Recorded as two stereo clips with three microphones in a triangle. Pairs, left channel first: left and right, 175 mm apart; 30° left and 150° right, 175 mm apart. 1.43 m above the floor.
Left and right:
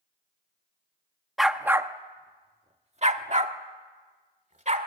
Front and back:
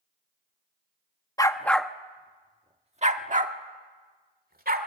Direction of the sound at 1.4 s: Straight ahead.